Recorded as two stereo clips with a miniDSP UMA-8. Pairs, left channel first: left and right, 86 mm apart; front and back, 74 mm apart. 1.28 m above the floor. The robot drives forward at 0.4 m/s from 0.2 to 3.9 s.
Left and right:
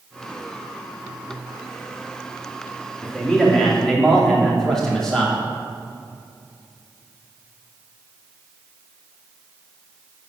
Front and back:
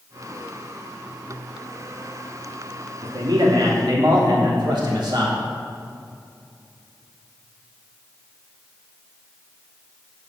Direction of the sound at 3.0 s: 175° left.